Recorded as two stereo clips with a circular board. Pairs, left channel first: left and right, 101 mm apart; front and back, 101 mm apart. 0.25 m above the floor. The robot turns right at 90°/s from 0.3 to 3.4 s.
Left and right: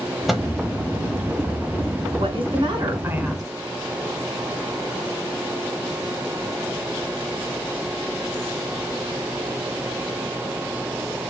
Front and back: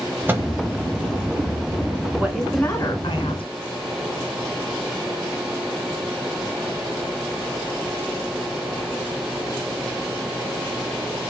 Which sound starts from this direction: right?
A woman speaking, at 2.2 s.